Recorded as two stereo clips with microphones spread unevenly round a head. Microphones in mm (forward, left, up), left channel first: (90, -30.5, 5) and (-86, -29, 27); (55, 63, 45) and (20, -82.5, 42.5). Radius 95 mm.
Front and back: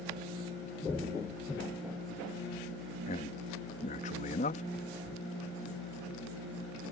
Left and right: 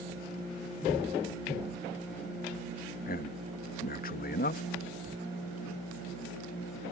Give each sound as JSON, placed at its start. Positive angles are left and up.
{"t": 3.1, "sound": "a man speaking", "azimuth_deg": 55}
{"t": 5.1, "sound": "writing", "azimuth_deg": -80}